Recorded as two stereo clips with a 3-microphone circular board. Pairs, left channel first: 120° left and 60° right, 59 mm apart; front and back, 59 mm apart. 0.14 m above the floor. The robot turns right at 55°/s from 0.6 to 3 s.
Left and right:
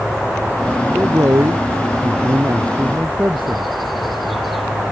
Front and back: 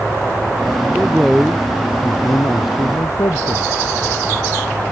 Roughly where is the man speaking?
Behind right.